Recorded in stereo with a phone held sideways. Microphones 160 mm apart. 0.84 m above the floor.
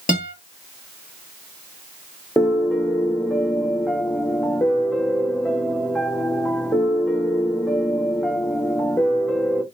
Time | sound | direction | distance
0.1 | a guitar | 60° left (ahead or behind) | 1.0 m
2.4 | a piano | 5° left (ahead or behind) | 0.6 m